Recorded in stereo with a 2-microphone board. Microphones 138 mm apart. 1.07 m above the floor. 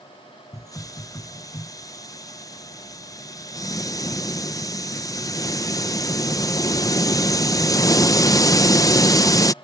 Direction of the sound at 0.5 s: 25° left (ahead or behind).